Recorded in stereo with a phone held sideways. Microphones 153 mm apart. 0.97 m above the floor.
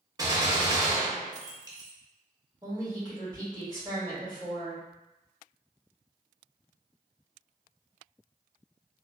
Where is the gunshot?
25° right (ahead or behind), 0.6 m.